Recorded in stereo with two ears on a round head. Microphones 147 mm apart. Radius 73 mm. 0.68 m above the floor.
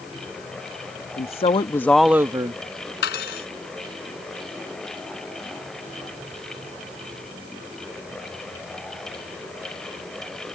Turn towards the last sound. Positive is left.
turn(degrees=75)  # may be behind; listen again after turning